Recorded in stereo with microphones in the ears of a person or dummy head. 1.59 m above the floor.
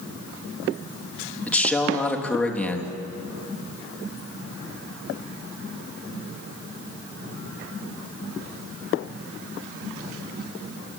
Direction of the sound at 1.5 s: 10° left (ahead or behind).